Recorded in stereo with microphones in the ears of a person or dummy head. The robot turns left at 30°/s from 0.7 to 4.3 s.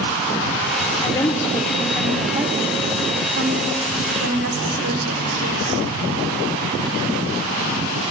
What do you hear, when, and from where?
1.0 s a woman speaking: 30° left (ahead or behind), 1.1 m; by 5.8 s 70° right (ahead or behind), 1.1 m